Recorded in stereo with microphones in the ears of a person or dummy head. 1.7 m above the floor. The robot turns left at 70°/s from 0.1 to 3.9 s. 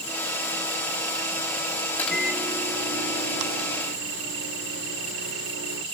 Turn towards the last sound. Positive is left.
turn(degrees=-120)